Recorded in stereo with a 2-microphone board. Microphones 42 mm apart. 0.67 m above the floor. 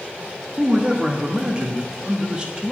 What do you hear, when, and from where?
0.6 s a man speaking: 25° right (ahead or behind), 1.0 m